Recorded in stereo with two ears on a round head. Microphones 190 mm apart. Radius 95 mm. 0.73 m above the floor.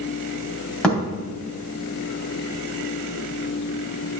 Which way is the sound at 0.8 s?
5° left (ahead or behind).